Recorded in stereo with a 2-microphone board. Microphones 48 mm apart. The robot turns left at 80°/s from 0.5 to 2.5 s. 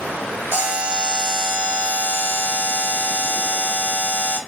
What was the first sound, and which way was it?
A buzzer, 110° right.